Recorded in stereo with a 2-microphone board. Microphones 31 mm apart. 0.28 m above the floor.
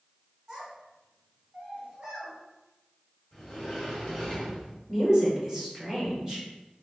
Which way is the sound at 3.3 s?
Centre (ahead or behind).